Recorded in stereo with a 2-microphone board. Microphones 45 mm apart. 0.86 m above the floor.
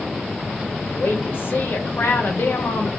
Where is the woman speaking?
60° left (ahead or behind), 0.9 m.